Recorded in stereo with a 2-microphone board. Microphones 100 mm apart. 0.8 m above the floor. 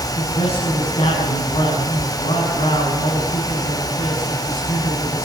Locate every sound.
0.2 s a man speaking: 85° left, 8 m